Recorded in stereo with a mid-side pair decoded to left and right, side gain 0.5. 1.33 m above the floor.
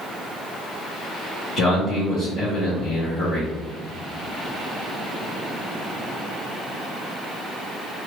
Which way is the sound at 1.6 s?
60° left.